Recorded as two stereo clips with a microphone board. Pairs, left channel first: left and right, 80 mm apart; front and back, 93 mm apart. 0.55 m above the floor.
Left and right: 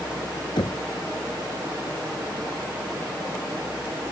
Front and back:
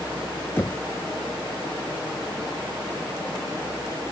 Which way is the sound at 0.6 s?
65° left.